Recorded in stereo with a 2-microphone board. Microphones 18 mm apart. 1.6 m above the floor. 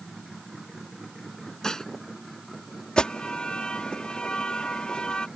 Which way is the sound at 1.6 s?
35° left (ahead or behind).